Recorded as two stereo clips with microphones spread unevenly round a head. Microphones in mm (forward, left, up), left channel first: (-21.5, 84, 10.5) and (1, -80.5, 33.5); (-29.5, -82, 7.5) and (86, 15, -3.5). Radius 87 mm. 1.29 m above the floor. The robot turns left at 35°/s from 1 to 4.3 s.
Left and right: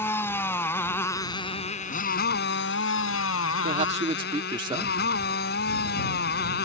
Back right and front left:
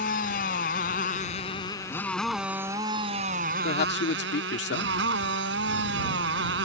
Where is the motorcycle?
175° left; by 6.7 s 60° left.